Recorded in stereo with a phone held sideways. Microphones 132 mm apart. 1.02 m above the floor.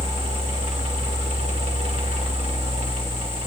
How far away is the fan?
About 2 m.